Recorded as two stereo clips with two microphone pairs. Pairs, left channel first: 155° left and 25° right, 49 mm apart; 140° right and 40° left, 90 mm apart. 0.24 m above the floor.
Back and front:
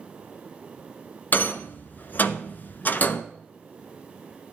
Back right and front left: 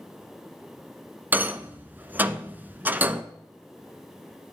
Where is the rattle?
110° left, 0.6 m.